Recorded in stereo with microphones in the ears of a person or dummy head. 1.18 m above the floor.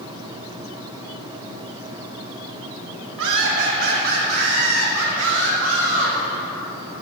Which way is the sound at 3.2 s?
75° right (ahead or behind).